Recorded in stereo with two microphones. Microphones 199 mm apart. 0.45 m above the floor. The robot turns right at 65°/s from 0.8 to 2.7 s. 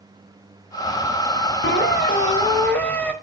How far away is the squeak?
About 1.0 m.